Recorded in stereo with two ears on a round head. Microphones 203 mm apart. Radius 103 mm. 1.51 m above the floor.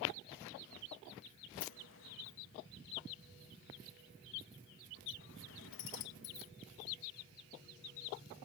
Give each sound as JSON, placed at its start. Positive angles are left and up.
{"t": 1.6, "sound": "a sliding door", "side_deg": 65}